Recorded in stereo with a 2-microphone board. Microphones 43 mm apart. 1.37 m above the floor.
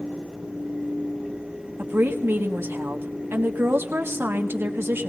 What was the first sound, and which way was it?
A woman speaking, 75° right (ahead or behind).